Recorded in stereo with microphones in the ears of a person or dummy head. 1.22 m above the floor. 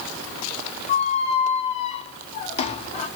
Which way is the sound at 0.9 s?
40° left (ahead or behind).